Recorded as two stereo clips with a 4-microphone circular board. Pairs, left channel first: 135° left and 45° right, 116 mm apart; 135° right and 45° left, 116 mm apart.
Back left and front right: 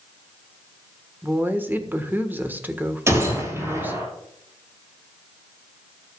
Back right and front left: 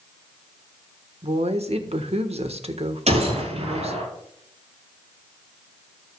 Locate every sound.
1.2 s a woman speaking: 25° left, 1.4 m
3.1 s a gunshot: 20° left, 5.5 m